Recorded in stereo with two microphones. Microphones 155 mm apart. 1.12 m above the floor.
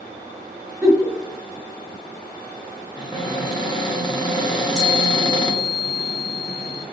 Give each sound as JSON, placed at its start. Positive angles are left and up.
{"t": 0.8, "sound": "a giggle", "side_deg": -5, "distance_m": 1.0}
{"t": 3.0, "sound": "a cupboard door", "side_deg": 30, "distance_m": 0.8}
{"t": 4.5, "sound": "a chime", "side_deg": 20, "distance_m": 1.3}